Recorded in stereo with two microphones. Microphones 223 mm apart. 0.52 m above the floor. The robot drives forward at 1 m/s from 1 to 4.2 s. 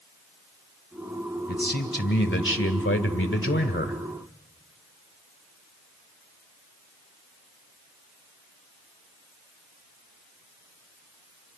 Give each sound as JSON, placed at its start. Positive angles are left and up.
{"t": 1.5, "sound": "a man speaking", "side_deg": 45, "distance_m": 2.0}